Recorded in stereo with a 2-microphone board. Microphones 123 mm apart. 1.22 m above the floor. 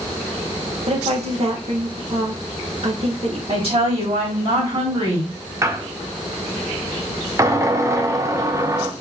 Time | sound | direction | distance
0.9 | a woman speaking | 55° right (ahead or behind) | 1.2 m
3.5 | a woman speaking | 50° right (ahead or behind) | 2.5 m
5.6 | a squeak | 25° right (ahead or behind) | 0.6 m